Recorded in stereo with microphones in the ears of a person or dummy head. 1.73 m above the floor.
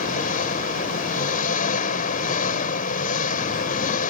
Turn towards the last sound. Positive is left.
turn(degrees=50)  # may be behind; listen again after turning